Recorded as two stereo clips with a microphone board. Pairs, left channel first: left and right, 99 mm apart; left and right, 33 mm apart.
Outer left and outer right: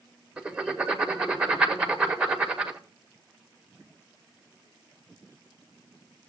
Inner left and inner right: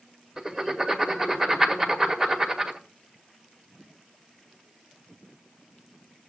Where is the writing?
10° right (ahead or behind), 1.5 m.